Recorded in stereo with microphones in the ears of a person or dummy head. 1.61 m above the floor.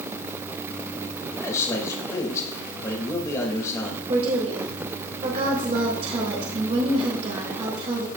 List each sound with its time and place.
1.4 s a man speaking: 20° left (ahead or behind), 2.5 m
4.1 s a woman speaking: 35° right (ahead or behind), 2.5 m